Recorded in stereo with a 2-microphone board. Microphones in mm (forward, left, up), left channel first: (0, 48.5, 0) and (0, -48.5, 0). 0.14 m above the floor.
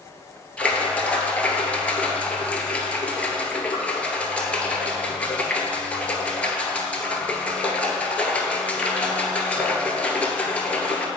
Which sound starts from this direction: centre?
A splash, at 0.6 s.